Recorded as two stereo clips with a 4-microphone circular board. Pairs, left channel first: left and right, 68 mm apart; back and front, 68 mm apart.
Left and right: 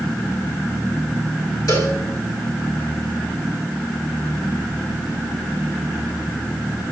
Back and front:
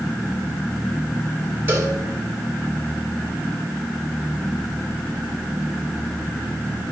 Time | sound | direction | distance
1.7 | a cowbell | 60° left | 2.5 m